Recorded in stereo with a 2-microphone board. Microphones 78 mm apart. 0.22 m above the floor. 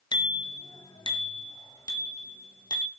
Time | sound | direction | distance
0.1 | a bicycle bell | 65° left (ahead or behind) | 2 m